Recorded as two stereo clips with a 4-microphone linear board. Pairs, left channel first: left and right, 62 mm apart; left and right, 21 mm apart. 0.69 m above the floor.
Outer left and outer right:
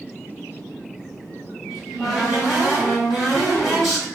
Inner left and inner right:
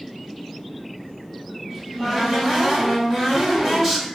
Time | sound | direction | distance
1.7 | a cupboard door | centre (ahead or behind) | 1.7 m